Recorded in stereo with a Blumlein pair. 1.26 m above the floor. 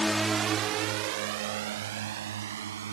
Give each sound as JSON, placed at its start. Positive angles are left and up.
{"t": 0.0, "sound": "a drone", "azimuth_deg": 10}